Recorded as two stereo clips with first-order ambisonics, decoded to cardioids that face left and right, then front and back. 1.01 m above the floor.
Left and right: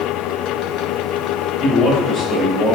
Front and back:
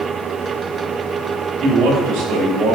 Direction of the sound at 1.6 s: 150° left.